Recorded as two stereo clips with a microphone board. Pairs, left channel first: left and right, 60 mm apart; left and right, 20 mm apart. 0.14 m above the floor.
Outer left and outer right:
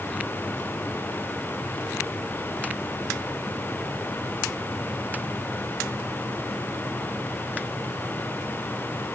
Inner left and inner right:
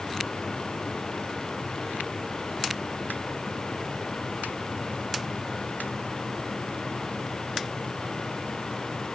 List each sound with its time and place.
Only background noise.